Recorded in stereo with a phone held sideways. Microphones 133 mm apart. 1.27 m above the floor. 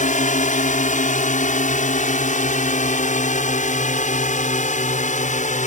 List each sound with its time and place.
0.0 s a drone: 65° left (ahead or behind)